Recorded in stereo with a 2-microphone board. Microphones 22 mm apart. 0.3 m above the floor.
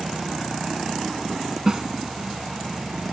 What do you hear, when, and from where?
1.7 s a snare drum: 25° right (ahead or behind)